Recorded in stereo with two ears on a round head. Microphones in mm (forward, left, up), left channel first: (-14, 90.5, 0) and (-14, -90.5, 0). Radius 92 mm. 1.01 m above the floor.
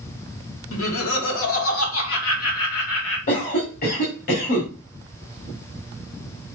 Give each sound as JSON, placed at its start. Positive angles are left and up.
{"t": 0.7, "sound": "laughter", "side_deg": 75, "distance_m": 2.0}
{"t": 3.3, "sound": "a cough", "side_deg": 40, "distance_m": 2.5}